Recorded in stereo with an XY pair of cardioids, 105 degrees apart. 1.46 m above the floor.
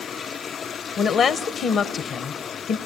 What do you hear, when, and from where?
1.0 s a woman speaking: 60° left, 1.1 m